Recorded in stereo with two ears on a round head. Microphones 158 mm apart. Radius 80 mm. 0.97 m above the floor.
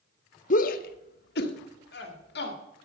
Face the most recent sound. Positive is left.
turn(degrees=60)  # may be behind; listen again after turning